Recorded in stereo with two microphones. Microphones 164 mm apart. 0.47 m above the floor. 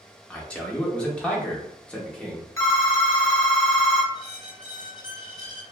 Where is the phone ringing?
20° left (ahead or behind), 0.8 m.